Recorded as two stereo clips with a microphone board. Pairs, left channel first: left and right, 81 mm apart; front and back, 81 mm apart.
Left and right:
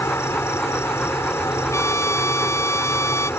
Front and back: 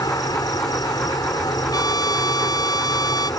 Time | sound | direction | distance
0.0 | an insect | 35° left | ?
1.7 | a trumpet | 35° left | ?